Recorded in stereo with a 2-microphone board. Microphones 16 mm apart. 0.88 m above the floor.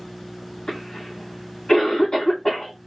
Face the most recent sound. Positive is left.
turn(degrees=70)  # may be behind; listen again after turning